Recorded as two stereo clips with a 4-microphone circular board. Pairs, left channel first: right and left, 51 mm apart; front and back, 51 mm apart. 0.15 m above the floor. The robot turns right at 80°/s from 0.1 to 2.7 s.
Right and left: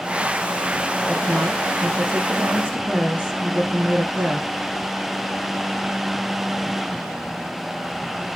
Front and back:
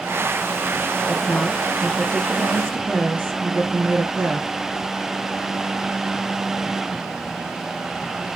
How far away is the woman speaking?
About 1.8 m.